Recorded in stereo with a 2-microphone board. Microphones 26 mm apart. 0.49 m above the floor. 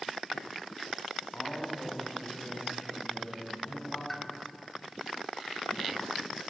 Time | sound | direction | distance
1.3 | a man speaking | 55° left (ahead or behind) | 3.5 m
4.1 | a pop | 10° left (ahead or behind) | 0.9 m